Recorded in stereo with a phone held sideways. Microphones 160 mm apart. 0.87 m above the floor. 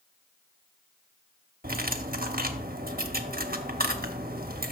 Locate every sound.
1.6 s cutlery clinking: 65° right (ahead or behind), 0.8 m